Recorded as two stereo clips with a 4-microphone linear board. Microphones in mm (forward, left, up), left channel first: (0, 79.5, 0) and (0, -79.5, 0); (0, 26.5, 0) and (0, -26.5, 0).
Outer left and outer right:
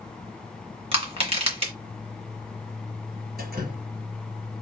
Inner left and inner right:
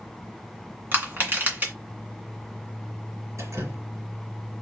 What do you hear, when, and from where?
0.9 s crushing: 40° right (ahead or behind), 2 m
3.4 s dripping: 75° right (ahead or behind), 3 m